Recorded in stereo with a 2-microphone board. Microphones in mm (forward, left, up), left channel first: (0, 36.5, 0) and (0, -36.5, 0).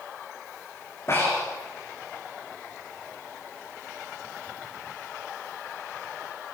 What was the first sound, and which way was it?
Breathing, 40° left (ahead or behind).